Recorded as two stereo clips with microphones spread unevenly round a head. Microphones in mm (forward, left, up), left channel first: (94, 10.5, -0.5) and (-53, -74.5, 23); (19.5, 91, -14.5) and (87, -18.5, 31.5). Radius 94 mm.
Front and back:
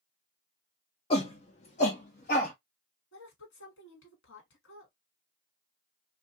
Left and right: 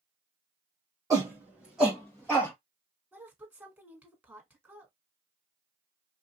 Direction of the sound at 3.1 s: 25° left.